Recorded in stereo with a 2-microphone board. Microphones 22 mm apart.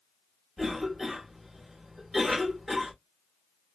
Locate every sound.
0.6 s a cough: 5° left (ahead or behind), 1.0 m